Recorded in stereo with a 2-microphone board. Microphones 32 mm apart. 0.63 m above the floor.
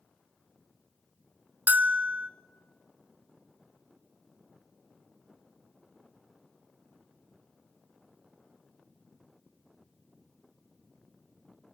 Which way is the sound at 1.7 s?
70° right (ahead or behind).